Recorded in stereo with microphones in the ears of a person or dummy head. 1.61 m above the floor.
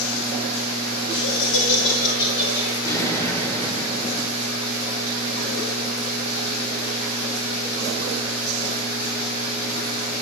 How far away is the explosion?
About 2.5 m.